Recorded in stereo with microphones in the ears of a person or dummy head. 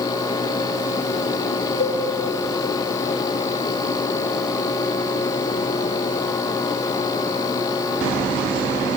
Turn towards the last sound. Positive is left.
turn(degrees=35)  # may be behind; listen again after turning